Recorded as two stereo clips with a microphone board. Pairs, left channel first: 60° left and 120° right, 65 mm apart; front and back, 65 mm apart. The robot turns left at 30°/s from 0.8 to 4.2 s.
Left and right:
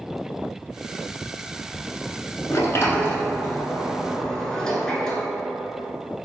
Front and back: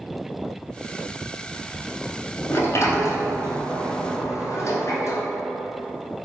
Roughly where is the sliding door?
Ahead left.